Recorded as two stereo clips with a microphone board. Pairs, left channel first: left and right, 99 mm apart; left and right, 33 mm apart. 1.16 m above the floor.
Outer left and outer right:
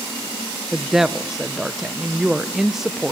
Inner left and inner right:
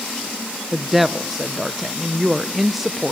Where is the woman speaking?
5° right (ahead or behind), 0.6 m.